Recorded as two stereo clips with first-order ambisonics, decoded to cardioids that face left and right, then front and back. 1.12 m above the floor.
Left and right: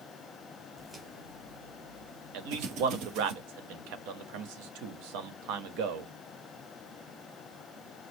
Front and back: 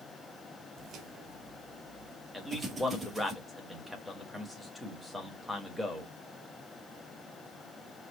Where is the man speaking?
90° right, 1.4 m.